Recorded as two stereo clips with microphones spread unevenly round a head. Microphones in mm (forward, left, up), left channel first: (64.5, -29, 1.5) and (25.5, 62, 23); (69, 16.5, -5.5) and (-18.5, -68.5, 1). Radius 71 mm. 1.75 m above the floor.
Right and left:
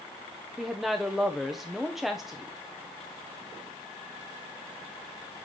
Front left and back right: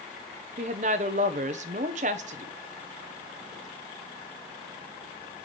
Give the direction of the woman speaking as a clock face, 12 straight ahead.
5 o'clock.